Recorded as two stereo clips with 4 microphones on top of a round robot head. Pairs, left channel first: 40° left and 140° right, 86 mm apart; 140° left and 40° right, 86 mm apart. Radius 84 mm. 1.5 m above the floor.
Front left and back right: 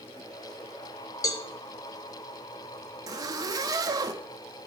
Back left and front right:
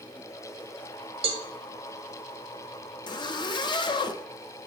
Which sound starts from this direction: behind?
A zipper, at 3.1 s.